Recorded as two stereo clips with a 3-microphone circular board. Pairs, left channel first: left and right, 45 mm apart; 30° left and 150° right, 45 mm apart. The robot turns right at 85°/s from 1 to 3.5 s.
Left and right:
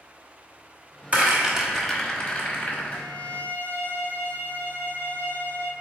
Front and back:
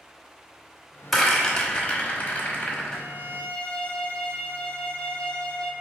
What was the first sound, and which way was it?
A rattle, 60° right.